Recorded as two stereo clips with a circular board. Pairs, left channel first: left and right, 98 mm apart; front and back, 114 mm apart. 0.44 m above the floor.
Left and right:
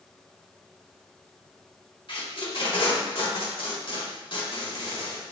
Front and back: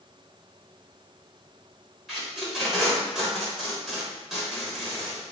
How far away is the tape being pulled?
About 1.1 m.